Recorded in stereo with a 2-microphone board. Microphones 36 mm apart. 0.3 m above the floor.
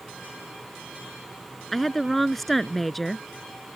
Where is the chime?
I don't hear a chime.